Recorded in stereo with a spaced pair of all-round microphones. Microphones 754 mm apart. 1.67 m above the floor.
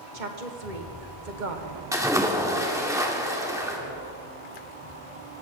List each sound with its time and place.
0.1 s a woman speaking: 80° right, 1.5 m
1.9 s a splash: 5° right (ahead or behind), 1.5 m